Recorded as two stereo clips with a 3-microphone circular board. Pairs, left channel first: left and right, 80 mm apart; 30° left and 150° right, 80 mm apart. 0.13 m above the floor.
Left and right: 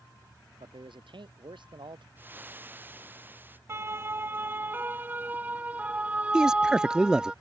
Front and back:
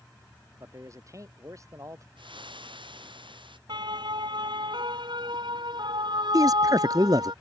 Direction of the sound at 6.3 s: 170° right.